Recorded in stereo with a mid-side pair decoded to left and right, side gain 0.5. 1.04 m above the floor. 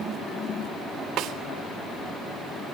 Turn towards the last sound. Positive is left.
turn(degrees=-65)